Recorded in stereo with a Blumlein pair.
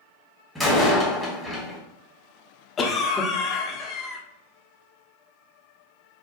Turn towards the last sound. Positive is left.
turn(degrees=20)